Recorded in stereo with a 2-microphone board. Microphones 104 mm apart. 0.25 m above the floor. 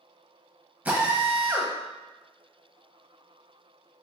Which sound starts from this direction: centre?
A drill, at 0.8 s.